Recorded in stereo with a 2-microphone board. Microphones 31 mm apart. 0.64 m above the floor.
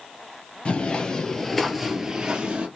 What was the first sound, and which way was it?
Footsteps, 40° left (ahead or behind).